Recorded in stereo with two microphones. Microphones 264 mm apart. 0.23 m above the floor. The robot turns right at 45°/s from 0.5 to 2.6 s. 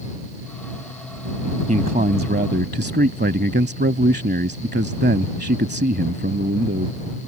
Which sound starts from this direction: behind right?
A man speaking, at 1.7 s.